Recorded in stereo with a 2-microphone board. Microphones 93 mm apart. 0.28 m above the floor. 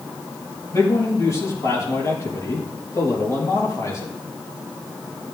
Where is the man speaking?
35° left (ahead or behind), 6 m.